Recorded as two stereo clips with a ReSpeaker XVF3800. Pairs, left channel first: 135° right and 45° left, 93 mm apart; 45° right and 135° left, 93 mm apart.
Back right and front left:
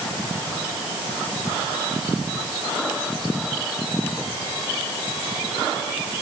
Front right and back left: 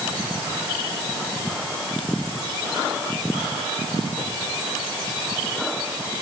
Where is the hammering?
No hammering in this recording.